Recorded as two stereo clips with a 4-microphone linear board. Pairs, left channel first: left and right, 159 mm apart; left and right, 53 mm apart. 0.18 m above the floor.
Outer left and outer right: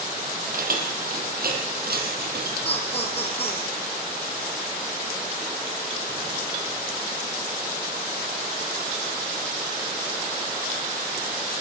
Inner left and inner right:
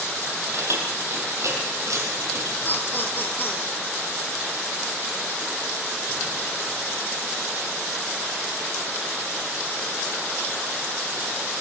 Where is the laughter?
35° left (ahead or behind), 5 m.